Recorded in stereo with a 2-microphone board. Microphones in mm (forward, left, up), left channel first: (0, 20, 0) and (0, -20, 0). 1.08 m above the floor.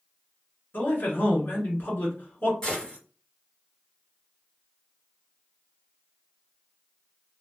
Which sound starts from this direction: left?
A man speaking, at 0.7 s.